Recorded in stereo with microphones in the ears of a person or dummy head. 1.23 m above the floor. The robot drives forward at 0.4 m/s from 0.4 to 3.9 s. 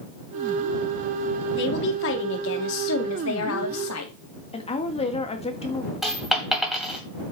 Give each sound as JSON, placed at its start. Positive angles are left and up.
{"t": 1.6, "sound": "a woman speaking", "side_deg": 65, "distance_m": 2.5}
{"t": 4.5, "sound": "a woman speaking", "side_deg": 25, "distance_m": 1.5}
{"t": 6.0, "sound": "a dropped coin", "side_deg": 0, "distance_m": 2.0}